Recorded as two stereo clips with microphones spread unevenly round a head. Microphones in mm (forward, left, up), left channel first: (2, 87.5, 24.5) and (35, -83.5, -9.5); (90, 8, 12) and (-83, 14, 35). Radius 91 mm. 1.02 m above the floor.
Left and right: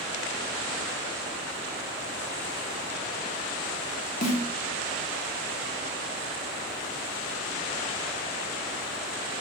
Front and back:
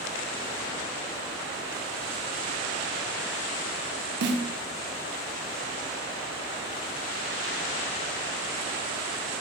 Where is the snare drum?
155° left, 1.3 m.